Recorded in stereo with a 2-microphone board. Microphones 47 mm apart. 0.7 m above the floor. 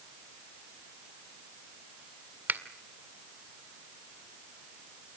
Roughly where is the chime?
I don't hear a chime.